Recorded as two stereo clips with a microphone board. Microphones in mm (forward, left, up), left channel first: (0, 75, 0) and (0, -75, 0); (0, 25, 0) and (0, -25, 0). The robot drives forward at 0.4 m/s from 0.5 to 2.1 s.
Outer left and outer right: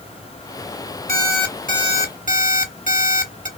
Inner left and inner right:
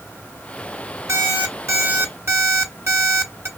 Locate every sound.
1.1 s an alarm clock: 70° right (ahead or behind), 1.7 m; by 3.5 s 60° right (ahead or behind), 1.8 m